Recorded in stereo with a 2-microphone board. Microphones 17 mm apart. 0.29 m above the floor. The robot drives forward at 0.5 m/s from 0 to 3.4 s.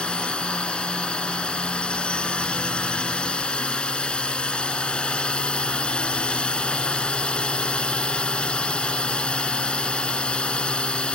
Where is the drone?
70° left (ahead or behind).